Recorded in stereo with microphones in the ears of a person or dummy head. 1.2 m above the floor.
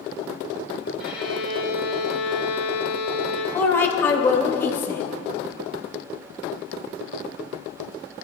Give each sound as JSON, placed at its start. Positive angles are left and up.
{"t": 1.0, "sound": "a violin", "side_deg": -5, "distance_m": 2.5}
{"t": 3.5, "sound": "a woman speaking", "side_deg": 15, "distance_m": 0.9}